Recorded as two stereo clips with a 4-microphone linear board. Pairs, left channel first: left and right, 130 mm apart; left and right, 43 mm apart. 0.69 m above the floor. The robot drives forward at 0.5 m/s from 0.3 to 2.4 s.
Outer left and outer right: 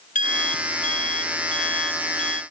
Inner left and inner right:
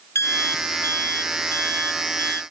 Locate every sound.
0.1 s an alarm clock: 85° left; by 2.4 s 75° left (ahead or behind)